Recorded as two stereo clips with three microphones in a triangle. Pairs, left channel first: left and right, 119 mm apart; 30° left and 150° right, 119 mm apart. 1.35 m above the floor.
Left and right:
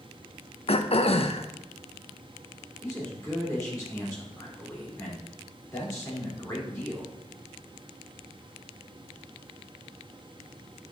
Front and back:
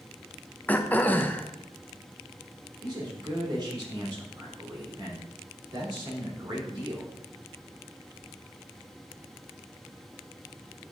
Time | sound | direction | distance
0.7 | throat clearing | 100° left | 0.6 m
2.8 | a man speaking | 155° left | 3.5 m